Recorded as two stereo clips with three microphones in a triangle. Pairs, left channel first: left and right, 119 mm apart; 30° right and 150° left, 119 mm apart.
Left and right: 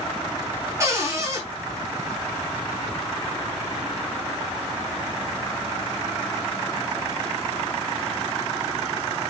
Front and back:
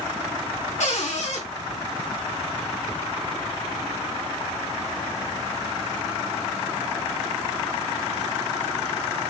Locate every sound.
0.8 s a cupboard door: 25° right, 5 m